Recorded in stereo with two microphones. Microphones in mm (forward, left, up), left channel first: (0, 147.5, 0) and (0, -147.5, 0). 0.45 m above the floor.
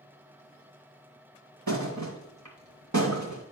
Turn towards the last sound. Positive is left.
turn(degrees=-85)